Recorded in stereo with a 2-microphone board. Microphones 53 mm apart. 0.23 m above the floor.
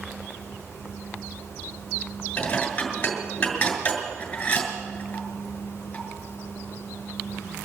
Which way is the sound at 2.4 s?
25° left (ahead or behind).